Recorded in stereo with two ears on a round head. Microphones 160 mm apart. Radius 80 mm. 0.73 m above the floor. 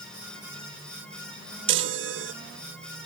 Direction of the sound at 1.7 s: 70° right (ahead or behind).